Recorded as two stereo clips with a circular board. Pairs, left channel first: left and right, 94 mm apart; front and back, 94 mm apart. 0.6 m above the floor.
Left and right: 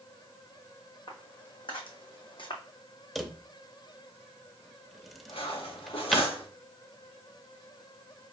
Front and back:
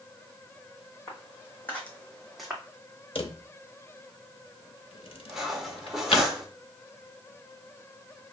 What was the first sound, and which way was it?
Footsteps, 60° left.